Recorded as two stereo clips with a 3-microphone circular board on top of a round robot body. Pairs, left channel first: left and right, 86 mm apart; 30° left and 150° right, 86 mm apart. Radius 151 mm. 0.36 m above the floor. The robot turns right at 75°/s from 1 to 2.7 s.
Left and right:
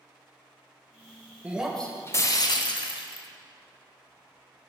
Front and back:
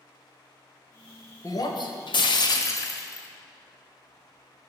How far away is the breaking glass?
About 1.2 m.